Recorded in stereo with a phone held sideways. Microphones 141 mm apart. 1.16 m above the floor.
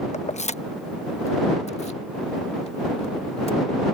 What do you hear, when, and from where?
0.1 s keys jangling: 55° left (ahead or behind); by 3.6 s 50° left (ahead or behind)